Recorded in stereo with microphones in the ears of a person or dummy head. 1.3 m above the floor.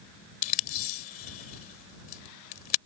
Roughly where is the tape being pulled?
Left.